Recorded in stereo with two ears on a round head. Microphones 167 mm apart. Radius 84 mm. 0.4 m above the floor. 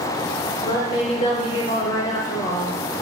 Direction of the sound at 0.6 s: 30° left (ahead or behind).